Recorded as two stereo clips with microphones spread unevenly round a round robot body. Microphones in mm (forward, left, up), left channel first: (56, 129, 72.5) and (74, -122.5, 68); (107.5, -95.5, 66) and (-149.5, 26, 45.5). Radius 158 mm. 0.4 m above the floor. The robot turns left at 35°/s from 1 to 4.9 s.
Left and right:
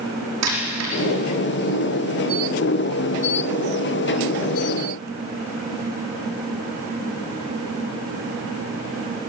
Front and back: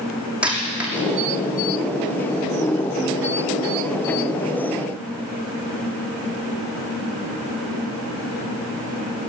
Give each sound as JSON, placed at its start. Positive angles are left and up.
{"t": 0.4, "sound": "a dropped coin", "azimuth_deg": -120, "distance_m": 6.0}